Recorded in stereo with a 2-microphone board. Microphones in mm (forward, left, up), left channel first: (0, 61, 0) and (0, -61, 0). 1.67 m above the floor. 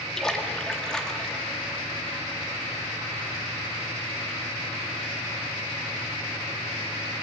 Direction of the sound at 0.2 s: 5° left (ahead or behind).